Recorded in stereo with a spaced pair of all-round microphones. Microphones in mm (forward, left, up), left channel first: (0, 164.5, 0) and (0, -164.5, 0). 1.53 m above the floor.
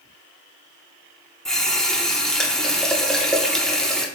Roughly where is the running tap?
Centre.